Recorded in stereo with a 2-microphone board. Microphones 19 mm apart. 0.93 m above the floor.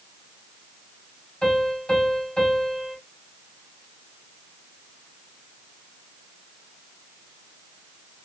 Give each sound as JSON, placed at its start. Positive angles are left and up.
{"t": 1.4, "sound": "a piano", "side_deg": 50, "distance_m": 3.0}